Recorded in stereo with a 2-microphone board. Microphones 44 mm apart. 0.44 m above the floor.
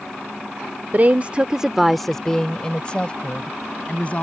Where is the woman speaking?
45° right (ahead or behind); by 4.2 s 30° left (ahead or behind).